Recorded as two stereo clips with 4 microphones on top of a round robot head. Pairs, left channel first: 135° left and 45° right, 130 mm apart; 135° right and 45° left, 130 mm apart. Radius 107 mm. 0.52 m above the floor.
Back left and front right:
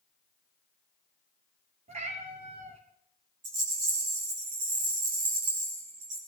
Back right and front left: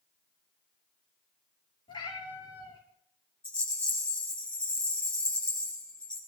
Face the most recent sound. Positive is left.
turn(degrees=-55)